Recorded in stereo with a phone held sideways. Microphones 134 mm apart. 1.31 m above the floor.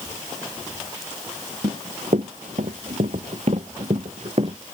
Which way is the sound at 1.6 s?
70° right (ahead or behind).